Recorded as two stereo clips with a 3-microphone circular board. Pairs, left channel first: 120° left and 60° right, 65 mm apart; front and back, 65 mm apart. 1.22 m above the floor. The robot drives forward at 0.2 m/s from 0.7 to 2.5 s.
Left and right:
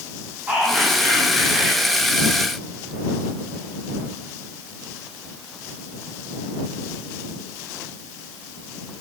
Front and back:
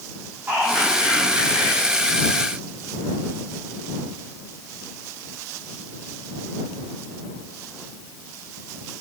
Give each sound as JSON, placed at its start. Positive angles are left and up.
{"t": 0.5, "sound": "whispering", "azimuth_deg": -125, "distance_m": 1.4}